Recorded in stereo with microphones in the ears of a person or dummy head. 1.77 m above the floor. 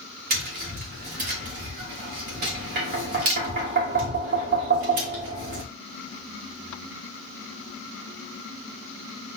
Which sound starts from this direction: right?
Tapping, at 0.3 s.